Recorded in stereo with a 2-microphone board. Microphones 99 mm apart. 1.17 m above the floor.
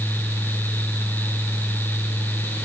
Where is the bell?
I don't hear a bell.